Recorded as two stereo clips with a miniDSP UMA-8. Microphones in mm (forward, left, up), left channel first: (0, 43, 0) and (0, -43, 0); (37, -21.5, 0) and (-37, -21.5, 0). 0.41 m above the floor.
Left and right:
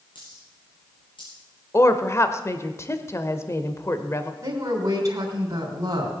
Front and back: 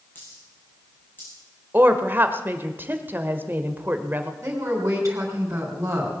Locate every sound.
0.1 s a dropped coin: 65° left, 6.5 m
1.7 s a woman speaking: 130° left, 1.2 m
4.4 s a woman speaking: 135° right, 3 m